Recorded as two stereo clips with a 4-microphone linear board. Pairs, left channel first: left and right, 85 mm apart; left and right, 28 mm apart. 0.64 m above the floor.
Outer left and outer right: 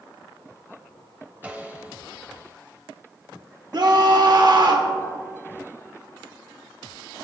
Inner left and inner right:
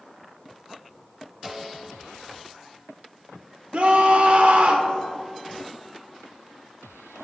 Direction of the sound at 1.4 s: 15° right (ahead or behind).